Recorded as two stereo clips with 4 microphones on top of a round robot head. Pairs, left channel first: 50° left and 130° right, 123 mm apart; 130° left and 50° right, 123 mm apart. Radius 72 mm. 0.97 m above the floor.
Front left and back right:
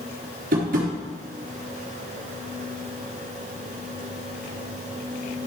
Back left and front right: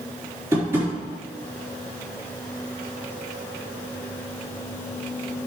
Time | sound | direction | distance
0.5 | tapping | 120° right | 4 m